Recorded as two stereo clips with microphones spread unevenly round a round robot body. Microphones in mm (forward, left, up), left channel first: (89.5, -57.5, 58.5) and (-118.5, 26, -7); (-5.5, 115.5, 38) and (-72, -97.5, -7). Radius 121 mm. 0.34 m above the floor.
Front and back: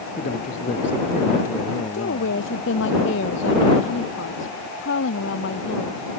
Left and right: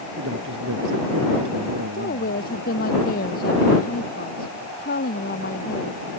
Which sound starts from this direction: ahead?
A woman speaking, at 1.9 s.